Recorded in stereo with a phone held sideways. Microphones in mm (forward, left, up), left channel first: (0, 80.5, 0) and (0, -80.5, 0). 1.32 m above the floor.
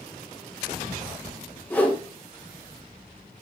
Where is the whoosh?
10° left (ahead or behind), 2.5 m.